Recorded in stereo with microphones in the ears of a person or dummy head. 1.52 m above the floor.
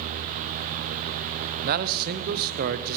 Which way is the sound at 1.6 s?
50° right (ahead or behind).